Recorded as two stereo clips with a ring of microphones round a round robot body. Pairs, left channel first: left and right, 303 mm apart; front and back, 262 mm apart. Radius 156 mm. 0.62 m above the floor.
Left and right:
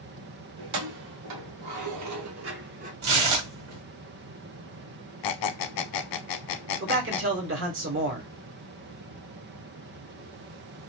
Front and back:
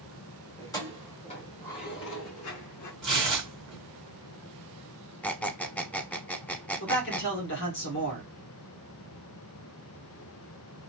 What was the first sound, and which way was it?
Keys jangling, 80° right.